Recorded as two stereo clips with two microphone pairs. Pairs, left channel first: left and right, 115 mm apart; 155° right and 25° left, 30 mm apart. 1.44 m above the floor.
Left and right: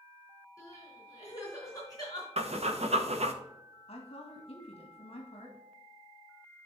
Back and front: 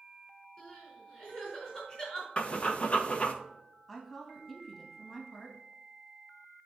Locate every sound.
0.6 s crying: 145° left, 4 m
2.4 s breathing: 110° right, 0.9 m
3.9 s a woman speaking: 120° left, 2.0 m